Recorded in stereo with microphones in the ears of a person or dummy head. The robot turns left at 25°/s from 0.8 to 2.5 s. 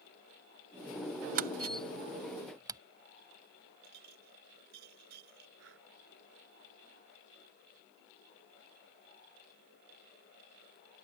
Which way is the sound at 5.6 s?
75° right (ahead or behind).